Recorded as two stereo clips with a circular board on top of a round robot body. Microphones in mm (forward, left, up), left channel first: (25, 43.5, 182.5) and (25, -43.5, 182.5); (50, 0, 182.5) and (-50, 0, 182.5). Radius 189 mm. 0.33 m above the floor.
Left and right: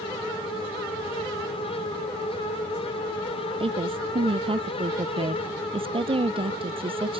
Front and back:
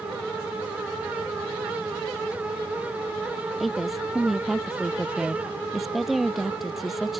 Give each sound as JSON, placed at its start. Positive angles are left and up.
{"t": 3.6, "sound": "a woman speaking", "azimuth_deg": -90}